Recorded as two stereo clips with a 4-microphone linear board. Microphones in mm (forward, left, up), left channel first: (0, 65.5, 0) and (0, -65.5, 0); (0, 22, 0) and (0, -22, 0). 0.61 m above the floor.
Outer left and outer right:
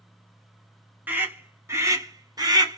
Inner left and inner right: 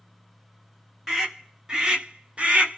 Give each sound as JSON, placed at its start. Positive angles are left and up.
{"t": 1.1, "sound": "a scream", "side_deg": -15, "distance_m": 1.3}